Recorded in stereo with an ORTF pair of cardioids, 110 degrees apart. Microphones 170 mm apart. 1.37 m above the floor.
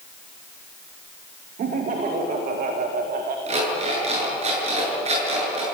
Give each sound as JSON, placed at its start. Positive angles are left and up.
{"t": 1.6, "sound": "laughter", "azimuth_deg": -55, "distance_m": 2.5}
{"t": 3.5, "sound": "an alarm clock", "azimuth_deg": -40, "distance_m": 8.0}